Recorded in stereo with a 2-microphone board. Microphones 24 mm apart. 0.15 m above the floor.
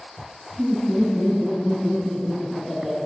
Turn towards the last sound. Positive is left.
turn(degrees=-25)  # may be behind; listen again after turning